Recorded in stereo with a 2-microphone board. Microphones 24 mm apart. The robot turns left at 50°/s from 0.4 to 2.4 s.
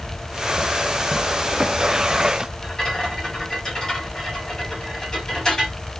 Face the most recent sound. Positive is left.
turn(degrees=40)  # may be behind; listen again after turning